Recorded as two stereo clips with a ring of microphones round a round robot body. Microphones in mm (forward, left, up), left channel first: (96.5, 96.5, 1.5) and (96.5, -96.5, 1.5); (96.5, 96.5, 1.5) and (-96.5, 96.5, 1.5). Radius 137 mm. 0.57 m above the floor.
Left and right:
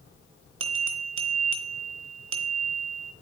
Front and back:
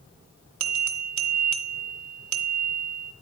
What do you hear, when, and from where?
0.6 s a bell: 140° right, 1.0 m